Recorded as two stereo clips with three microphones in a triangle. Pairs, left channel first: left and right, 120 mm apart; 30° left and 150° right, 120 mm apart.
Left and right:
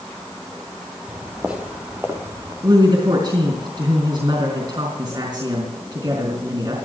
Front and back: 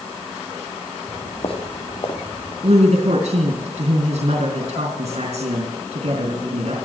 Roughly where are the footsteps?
Ahead.